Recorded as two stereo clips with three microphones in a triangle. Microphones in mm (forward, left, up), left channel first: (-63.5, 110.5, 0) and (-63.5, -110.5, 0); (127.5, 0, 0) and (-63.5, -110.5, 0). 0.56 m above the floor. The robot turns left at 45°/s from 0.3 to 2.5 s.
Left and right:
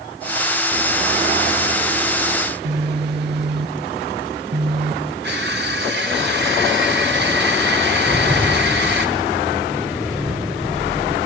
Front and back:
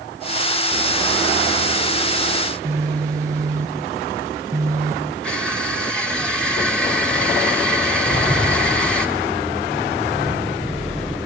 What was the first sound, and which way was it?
A phone buzzing, 75° right.